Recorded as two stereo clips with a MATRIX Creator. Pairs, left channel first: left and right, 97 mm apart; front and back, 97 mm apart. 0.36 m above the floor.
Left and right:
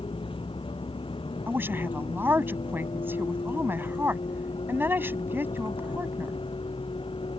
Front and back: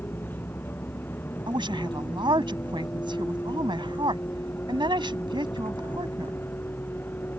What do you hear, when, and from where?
0.0 s a vehicle: 70° left
1.5 s a woman speaking: 155° right